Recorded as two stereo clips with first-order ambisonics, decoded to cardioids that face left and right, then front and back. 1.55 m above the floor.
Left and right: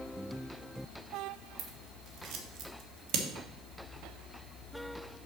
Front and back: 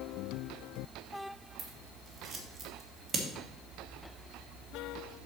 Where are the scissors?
110° right, 1.1 m.